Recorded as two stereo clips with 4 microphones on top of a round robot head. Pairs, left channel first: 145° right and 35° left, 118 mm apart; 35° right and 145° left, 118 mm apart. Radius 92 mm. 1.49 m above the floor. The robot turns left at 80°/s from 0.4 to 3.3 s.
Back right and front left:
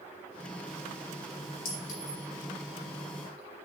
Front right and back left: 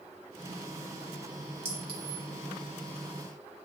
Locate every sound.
1.6 s a clink: 145° right, 2 m; by 2.2 s 170° left, 2 m